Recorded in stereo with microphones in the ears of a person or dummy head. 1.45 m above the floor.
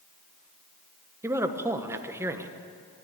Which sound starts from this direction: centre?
A man speaking, at 1.2 s.